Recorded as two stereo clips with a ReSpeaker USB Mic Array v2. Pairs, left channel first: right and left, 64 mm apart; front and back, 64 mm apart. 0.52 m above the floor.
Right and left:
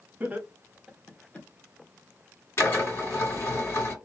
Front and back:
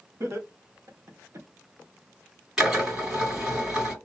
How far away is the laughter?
About 1.1 m.